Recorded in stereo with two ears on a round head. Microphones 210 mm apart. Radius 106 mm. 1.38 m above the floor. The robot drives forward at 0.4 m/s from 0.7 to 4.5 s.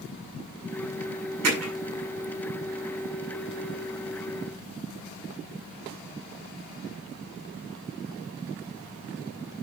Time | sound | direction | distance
1.4 | hammering | 70° right (ahead or behind) | 6.5 m